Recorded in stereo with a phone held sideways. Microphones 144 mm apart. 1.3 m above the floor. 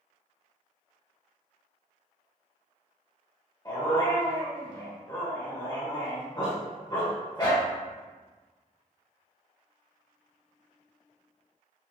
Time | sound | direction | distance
3.6 | a dog barking | 30° left (ahead or behind) | 1.3 m